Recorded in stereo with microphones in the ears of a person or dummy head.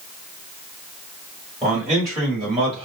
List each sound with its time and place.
1.6 s a man speaking: 10° right (ahead or behind), 2.0 m; by 2.9 s 35° right (ahead or behind), 1.5 m